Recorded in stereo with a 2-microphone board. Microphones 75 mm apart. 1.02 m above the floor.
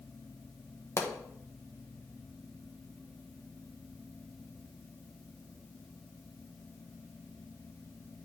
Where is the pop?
40° left (ahead or behind), 1.1 m.